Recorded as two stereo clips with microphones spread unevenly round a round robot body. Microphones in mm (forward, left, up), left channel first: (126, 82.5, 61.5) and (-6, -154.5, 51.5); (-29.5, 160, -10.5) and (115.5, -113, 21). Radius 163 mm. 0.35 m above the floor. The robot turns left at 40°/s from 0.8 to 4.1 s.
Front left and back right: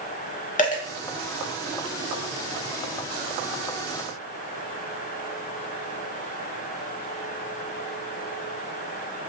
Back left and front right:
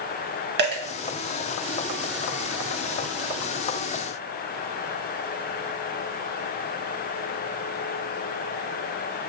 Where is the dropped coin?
5° right, 0.9 m.